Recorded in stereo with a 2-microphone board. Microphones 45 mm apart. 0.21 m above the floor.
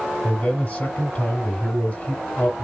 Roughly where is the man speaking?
Left.